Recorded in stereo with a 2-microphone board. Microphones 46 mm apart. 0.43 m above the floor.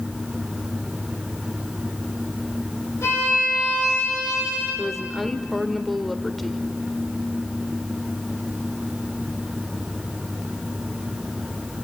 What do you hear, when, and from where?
3.0 s a violin: 80° left, 10 m
4.8 s a woman speaking: centre (ahead or behind), 1.0 m